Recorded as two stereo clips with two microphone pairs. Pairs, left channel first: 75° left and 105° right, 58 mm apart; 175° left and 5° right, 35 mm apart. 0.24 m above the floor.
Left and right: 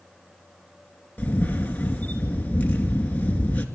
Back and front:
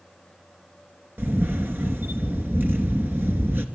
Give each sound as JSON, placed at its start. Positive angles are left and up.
{"t": 1.2, "sound": "a camera shutter", "azimuth_deg": 10, "distance_m": 2.5}